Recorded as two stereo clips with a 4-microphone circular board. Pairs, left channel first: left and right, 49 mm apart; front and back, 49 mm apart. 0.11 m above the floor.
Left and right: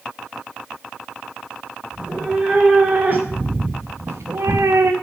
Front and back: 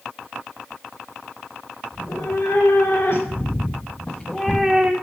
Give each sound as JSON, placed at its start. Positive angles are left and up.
{"t": 1.9, "sound": "a cat meowing", "azimuth_deg": -25, "distance_m": 3.5}